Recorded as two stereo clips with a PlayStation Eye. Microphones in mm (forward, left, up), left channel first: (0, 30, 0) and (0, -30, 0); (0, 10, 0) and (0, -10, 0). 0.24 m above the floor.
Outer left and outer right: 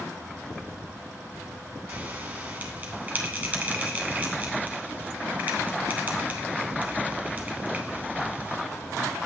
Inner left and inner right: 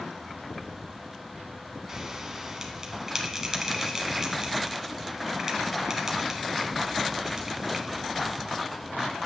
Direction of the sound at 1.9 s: 25° right (ahead or behind).